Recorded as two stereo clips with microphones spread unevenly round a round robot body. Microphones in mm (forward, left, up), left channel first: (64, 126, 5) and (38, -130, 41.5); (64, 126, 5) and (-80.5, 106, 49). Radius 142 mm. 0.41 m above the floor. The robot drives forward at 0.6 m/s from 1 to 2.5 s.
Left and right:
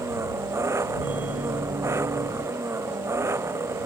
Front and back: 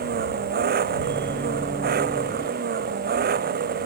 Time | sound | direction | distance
0.0 | an engine running | 175° right | ?